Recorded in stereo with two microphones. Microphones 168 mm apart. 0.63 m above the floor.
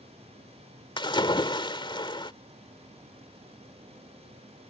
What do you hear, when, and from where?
1.0 s a splash: 30° left (ahead or behind)